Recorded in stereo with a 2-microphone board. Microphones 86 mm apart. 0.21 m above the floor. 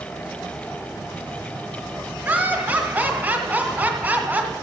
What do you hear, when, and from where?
2.2 s laughter: 25° right (ahead or behind), 1.4 m